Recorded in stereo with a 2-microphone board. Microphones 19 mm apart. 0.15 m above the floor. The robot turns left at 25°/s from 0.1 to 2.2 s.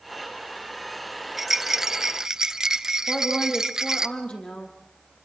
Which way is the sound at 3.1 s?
75° left (ahead or behind).